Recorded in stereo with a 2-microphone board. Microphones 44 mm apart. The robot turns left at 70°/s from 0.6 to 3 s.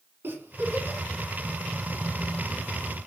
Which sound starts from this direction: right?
A giggle, at 0.2 s.